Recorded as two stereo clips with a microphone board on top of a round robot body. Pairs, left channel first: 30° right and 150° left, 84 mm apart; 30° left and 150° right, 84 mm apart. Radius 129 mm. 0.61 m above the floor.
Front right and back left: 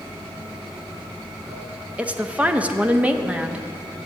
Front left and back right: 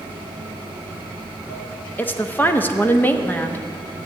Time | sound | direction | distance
0.0 | running water | 65° left | 5 m
2.0 | a woman speaking | 85° left | 1.1 m